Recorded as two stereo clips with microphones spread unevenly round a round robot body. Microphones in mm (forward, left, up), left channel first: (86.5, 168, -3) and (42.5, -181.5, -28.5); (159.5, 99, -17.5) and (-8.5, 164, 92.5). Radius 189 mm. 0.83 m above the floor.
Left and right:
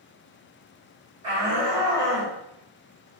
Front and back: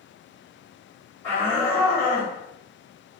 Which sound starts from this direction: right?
A shout, at 1.2 s.